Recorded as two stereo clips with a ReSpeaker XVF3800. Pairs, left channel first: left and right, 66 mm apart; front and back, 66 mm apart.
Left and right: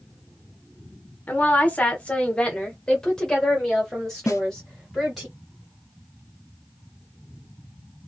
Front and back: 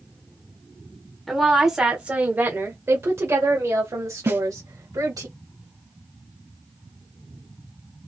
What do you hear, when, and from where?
1.3 s a woman speaking: 85° left, 1.2 m; by 5.3 s straight behind, 2.5 m
4.3 s a snare drum: 130° left, 0.9 m